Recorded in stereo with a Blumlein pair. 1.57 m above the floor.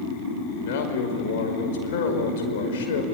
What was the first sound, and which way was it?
A man speaking, 55° left.